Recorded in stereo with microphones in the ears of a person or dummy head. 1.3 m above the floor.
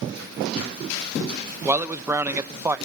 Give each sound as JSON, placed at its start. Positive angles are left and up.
{"t": 1.6, "sound": "a man speaking", "side_deg": -10, "distance_m": 0.7}